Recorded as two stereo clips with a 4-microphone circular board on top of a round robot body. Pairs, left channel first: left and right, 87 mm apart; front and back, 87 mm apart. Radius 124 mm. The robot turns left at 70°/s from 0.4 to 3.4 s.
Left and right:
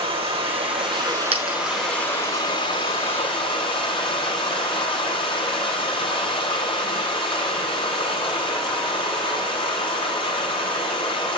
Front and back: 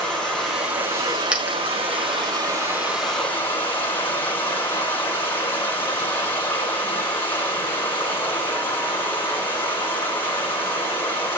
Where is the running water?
85° right, 8 m; by 11.4 s 65° left, 8 m.